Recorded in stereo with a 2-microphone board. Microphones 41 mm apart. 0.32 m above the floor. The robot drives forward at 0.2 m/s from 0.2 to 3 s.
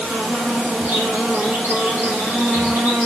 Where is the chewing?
No chewing in this recording.